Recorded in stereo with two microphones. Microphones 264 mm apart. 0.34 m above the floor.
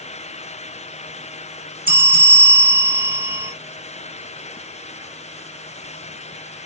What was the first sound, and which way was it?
A bell, 30° right (ahead or behind).